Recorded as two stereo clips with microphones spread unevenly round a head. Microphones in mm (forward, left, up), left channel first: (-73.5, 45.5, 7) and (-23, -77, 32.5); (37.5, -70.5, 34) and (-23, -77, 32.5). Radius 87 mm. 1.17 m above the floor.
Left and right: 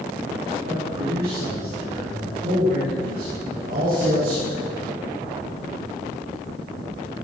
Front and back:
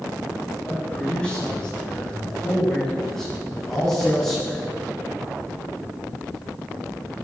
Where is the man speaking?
65° right, 6.5 m; by 4.6 s 80° right, 10 m.